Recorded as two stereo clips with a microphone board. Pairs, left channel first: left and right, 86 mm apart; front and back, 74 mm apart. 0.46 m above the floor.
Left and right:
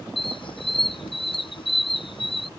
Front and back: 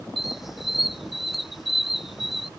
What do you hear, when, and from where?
0.2 s a squeak: 95° left